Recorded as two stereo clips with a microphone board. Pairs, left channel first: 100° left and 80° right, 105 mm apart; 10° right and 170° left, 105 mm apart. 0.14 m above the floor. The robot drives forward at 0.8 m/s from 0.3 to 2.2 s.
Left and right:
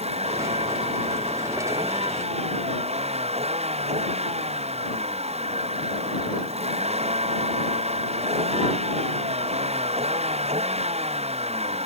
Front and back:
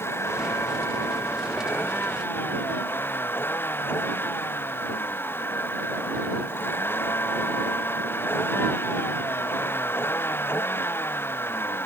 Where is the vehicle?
75° right; by 11.9 s 80° right.